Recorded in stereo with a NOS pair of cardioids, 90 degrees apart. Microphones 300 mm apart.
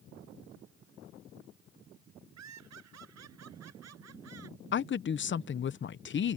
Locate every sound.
2.4 s laughter: 60° right; by 4.6 s 50° right
4.7 s a woman speaking: 40° left